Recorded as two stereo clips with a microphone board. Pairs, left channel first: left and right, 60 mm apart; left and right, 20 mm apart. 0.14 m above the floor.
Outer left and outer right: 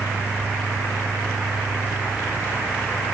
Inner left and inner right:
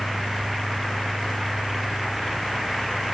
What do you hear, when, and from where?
Only background noise.